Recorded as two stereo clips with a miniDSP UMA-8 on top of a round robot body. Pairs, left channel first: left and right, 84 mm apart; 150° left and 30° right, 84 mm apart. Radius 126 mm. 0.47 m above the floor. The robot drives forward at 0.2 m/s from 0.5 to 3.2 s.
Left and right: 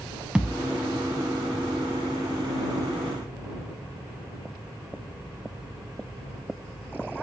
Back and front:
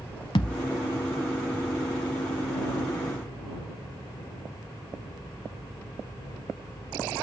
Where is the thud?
170° right, 0.7 m.